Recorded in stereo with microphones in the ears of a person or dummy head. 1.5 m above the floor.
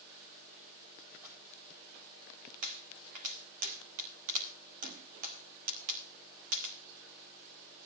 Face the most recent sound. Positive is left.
turn(degrees=-45)  # may be behind; listen again after turning